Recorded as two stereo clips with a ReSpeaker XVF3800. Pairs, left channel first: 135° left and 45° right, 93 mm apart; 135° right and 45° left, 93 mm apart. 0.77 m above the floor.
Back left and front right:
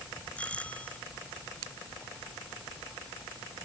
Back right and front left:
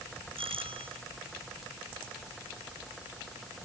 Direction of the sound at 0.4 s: 60° left.